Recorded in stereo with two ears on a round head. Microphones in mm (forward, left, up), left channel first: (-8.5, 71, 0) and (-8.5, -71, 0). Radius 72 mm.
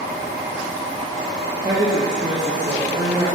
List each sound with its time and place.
1.6 s a woman speaking: 25° right (ahead or behind), 0.7 m